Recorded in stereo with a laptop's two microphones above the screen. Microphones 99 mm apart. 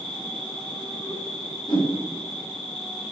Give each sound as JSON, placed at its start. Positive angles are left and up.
{"t": 0.0, "sound": "an insect", "side_deg": 85, "distance_m": 2.0}
{"t": 1.7, "sound": "a whoosh", "side_deg": 50, "distance_m": 1.8}